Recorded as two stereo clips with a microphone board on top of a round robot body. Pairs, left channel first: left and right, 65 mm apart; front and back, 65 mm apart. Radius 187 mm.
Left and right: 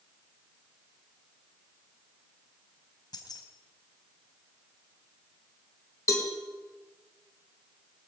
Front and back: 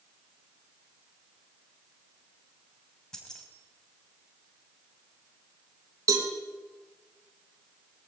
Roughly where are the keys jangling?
Left.